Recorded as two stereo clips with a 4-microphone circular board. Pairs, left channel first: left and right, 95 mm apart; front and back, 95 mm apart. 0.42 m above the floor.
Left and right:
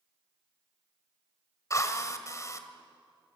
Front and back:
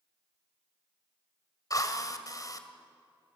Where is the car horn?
I don't hear a car horn.